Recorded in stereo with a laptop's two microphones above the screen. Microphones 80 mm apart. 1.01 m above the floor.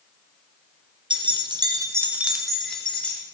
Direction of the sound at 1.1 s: 85° right.